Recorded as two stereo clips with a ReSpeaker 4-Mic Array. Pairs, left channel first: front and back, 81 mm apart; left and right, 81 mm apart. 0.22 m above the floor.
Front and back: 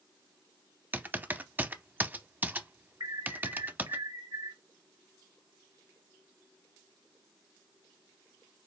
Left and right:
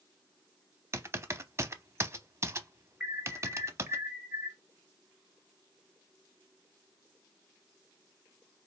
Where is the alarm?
165° right, 2 m.